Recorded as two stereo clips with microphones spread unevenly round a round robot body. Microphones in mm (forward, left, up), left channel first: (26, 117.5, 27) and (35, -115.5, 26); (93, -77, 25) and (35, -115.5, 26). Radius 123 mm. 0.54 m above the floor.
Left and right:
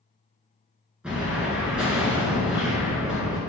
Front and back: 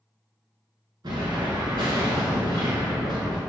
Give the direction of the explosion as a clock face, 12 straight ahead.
6 o'clock.